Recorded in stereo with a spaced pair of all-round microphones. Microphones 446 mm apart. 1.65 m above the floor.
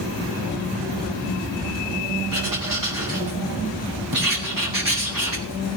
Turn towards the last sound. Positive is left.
turn(degrees=-45)  # may be behind; listen again after turning